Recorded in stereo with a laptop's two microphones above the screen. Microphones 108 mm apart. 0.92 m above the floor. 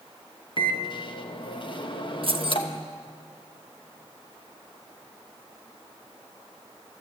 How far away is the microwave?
About 0.9 m.